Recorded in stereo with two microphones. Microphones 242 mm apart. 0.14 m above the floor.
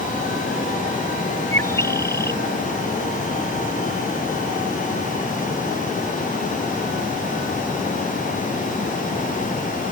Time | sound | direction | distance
1.5 | a bird | 10° left (ahead or behind) | ?